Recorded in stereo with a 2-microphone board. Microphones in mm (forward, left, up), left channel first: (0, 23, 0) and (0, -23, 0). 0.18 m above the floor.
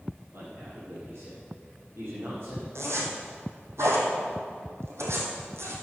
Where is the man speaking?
60° right (ahead or behind), 4 m.